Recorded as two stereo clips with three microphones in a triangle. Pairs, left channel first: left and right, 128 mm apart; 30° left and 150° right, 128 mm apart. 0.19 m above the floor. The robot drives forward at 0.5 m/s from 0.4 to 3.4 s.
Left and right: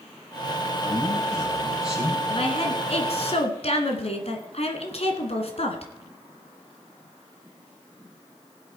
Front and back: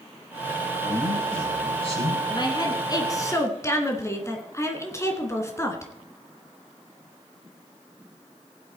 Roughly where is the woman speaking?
Left.